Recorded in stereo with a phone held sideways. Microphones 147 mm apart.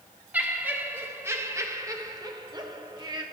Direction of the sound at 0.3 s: 10° right (ahead or behind).